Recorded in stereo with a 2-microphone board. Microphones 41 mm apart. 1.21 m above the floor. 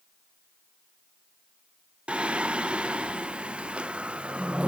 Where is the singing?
25° right (ahead or behind), 0.5 m.